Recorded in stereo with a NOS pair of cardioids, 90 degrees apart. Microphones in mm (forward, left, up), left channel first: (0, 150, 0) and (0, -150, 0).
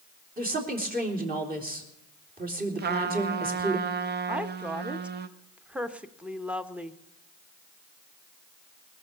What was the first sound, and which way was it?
A woman speaking, 30° right.